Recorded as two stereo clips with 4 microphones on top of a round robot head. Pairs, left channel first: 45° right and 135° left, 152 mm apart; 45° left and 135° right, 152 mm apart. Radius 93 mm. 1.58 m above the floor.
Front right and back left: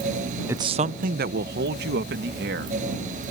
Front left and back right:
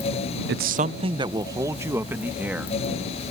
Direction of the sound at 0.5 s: 150° right.